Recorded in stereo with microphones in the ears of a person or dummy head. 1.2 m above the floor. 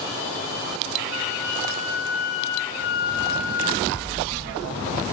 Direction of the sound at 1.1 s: 50° left (ahead or behind).